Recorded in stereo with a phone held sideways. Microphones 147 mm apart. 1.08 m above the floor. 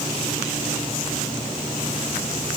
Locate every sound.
Only background noise.